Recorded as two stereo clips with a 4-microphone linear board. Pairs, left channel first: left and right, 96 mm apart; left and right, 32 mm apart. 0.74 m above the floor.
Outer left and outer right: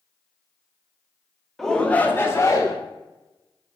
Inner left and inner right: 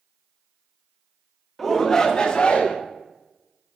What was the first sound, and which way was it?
A shout, centre (ahead or behind).